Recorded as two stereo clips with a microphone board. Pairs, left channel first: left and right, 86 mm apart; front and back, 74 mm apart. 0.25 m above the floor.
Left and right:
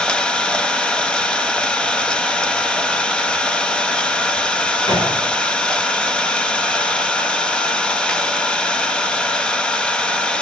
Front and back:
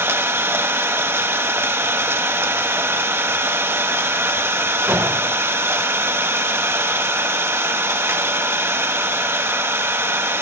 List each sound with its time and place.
0.0 s an engine running: 160° left, 1.0 m
4.9 s a gunshot: 105° left, 8 m